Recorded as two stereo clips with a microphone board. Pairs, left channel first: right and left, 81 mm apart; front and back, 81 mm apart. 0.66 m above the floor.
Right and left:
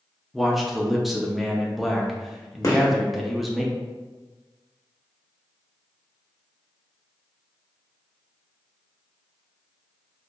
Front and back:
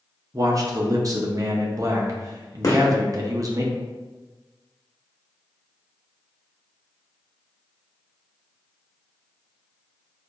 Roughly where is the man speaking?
Behind.